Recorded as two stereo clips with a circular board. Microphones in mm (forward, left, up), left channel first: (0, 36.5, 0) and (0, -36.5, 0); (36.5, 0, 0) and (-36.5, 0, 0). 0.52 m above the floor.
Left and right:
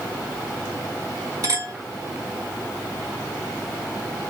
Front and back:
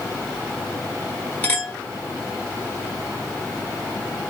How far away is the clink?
About 1.2 m.